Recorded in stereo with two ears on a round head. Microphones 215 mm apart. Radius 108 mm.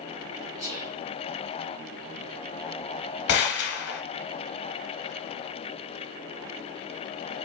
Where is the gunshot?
45° left (ahead or behind), 0.8 m.